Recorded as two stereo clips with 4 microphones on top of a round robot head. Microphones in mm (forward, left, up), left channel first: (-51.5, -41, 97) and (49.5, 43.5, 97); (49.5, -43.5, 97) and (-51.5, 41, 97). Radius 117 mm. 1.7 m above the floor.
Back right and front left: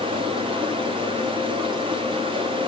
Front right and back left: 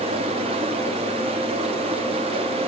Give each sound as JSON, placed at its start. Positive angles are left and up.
{"t": 0.0, "sound": "running water", "azimuth_deg": 95, "distance_m": 2.0}